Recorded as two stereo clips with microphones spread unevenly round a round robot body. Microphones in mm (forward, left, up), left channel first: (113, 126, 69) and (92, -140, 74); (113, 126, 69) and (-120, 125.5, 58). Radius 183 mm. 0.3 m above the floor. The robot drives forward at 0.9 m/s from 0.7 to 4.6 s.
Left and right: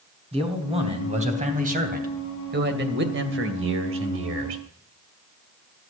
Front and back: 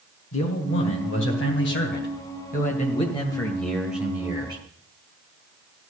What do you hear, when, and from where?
0.3 s a man speaking: 30° right, 3.5 m; by 4.6 s 115° right, 2 m